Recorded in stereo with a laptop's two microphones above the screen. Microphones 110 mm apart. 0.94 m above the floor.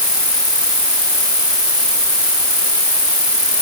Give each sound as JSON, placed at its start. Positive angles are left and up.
{"t": 0.0, "sound": "an insect", "side_deg": -5}